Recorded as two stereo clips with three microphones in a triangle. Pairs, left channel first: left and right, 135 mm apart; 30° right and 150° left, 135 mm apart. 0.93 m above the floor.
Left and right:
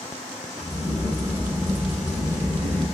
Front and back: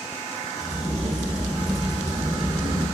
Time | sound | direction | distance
0.6 | a crack | 90° right | 2.5 m